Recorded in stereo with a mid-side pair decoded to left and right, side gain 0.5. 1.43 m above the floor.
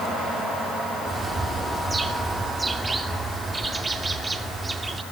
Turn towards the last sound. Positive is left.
turn(degrees=-20)